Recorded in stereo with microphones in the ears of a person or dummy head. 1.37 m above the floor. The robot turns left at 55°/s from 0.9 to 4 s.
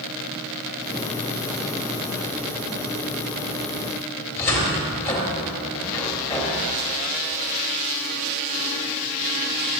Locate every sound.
4.4 s a cupboard door: 15° left (ahead or behind), 2.5 m